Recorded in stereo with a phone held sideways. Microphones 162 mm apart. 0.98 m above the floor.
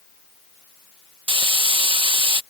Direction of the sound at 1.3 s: 30° right (ahead or behind).